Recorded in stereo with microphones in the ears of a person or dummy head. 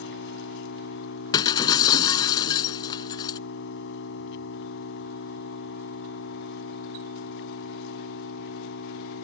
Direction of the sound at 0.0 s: 75° left (ahead or behind).